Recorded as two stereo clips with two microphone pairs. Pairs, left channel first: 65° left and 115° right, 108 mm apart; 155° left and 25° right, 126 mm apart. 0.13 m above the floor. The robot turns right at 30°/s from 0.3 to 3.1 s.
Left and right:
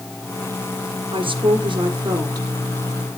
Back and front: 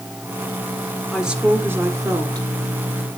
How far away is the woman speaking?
About 2.5 m.